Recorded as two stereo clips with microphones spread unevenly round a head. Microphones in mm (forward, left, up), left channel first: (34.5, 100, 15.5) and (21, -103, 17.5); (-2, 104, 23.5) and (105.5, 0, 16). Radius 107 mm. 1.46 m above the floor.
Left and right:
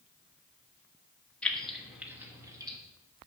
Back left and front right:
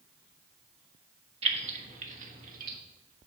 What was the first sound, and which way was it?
Keys jangling, straight ahead.